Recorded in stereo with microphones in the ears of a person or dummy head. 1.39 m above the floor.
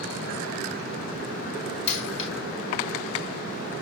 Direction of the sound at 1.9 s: 35° left (ahead or behind).